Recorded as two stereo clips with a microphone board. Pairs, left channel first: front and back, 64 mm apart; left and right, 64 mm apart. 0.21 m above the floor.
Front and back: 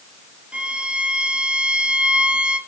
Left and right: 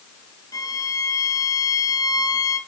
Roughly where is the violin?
Left.